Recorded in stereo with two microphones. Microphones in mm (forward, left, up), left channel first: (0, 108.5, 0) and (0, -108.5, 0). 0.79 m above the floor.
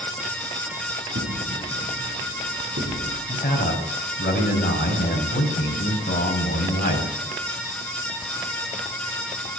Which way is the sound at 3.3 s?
45° left (ahead or behind).